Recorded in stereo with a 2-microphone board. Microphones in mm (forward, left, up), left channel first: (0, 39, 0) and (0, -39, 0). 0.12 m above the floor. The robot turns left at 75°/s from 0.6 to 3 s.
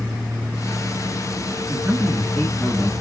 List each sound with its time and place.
1.7 s a man speaking: 135° right, 2.0 m; by 2.9 s 135° left, 2.0 m